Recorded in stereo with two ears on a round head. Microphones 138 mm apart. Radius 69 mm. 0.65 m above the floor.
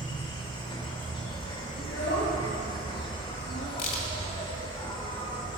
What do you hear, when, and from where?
0.0 s an insect: 30° left (ahead or behind), 1.3 m
1.8 s a child speaking: 70° left (ahead or behind), 2 m
3.8 s a crack: 60° left (ahead or behind), 2 m